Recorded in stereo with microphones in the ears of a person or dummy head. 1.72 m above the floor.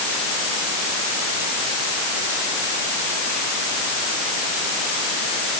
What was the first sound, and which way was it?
Only background noise.